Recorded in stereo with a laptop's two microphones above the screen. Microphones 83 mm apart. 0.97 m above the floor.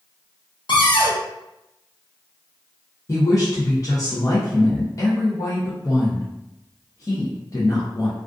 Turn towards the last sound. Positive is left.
turn(degrees=40)  # may be behind; listen again after turning